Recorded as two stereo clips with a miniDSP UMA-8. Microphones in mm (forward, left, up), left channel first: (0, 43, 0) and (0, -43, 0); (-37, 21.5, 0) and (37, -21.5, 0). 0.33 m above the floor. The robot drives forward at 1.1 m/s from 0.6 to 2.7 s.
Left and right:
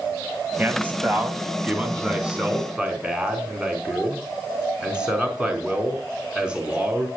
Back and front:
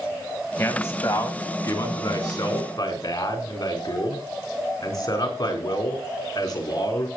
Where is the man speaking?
155° right, 2.5 m; by 7.1 s 170° right, 4.5 m.